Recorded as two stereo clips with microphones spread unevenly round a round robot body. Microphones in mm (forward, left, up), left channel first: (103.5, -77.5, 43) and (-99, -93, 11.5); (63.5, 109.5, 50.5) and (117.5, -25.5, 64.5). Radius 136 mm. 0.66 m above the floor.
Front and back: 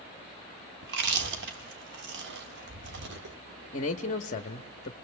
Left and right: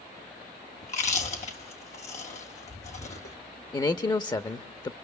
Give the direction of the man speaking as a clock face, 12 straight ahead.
10 o'clock.